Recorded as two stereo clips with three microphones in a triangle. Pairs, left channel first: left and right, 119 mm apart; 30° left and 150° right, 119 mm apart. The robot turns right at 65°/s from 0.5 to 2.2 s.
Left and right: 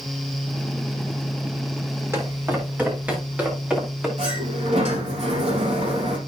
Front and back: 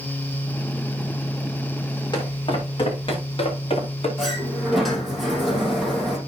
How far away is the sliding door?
About 4 m.